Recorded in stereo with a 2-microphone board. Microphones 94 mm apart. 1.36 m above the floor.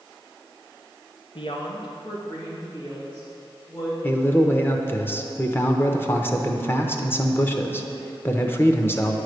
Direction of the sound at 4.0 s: 25° left (ahead or behind).